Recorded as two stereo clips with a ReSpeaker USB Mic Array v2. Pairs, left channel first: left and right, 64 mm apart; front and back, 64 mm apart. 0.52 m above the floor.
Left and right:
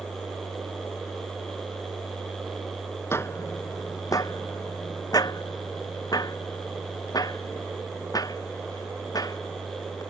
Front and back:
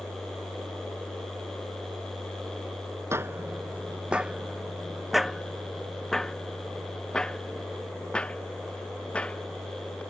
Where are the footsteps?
135° left; by 10.0 s 75° left.